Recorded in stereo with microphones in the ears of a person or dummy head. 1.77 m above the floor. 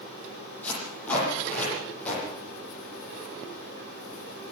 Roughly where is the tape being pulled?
Centre.